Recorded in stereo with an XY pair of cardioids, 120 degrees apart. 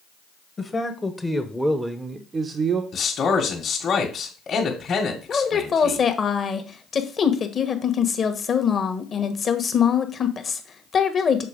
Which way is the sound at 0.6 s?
25° left.